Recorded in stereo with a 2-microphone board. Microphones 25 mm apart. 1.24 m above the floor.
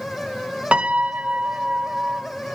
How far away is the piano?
About 1.3 m.